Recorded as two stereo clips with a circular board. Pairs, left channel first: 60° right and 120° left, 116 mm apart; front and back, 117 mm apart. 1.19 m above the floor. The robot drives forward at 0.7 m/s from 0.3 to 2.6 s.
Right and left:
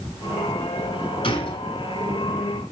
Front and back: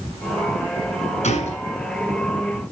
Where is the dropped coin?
No dropped coin in this recording.